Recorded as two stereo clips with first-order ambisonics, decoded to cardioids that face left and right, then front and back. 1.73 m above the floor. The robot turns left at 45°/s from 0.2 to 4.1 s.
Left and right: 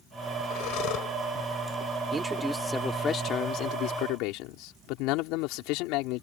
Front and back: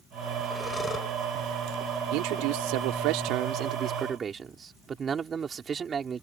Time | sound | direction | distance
0.5 | breathing | 85° left | ?
2.1 | a man speaking | 160° right | ?